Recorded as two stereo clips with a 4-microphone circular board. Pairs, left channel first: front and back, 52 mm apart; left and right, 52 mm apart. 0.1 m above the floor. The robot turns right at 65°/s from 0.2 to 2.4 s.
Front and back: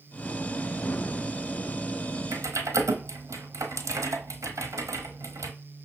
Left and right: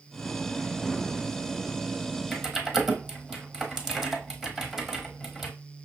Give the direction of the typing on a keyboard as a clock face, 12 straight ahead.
6 o'clock.